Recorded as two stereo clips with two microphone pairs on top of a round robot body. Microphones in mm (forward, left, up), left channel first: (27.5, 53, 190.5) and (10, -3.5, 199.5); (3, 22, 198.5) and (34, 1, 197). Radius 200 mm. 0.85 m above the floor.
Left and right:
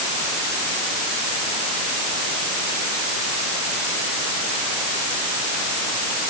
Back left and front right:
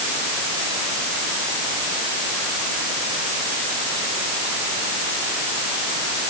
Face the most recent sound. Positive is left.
No sound to turn to.